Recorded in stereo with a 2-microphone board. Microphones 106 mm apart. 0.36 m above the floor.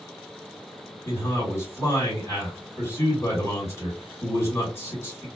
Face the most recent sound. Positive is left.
turn(degrees=25)  # may be behind; listen again after turning